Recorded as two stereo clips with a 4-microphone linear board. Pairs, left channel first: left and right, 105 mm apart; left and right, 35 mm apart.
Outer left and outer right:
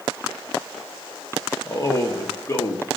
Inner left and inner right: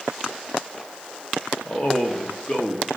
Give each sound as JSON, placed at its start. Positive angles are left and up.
{"t": 1.6, "sound": "a man speaking", "side_deg": 30, "distance_m": 0.8}